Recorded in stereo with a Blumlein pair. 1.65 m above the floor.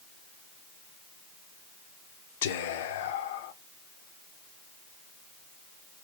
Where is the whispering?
55° left, 0.6 m.